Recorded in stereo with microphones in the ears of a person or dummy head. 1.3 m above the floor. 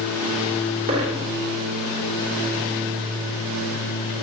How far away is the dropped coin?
About 2 m.